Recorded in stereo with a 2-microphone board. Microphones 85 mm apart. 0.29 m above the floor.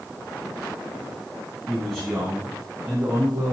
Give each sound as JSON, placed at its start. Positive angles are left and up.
{"t": 1.7, "sound": "a man speaking", "side_deg": 5, "distance_m": 2.5}